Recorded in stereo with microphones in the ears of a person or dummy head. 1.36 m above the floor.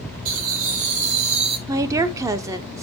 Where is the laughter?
50° right (ahead or behind), 2.5 m; by 1.6 s 35° right (ahead or behind), 1.5 m.